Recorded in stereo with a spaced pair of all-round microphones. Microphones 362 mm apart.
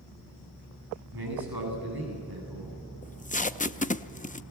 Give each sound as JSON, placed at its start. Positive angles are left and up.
{"t": 1.1, "sound": "a man speaking", "side_deg": -70, "distance_m": 9.5}
{"t": 3.0, "sound": "tape being pulled", "side_deg": 20, "distance_m": 0.6}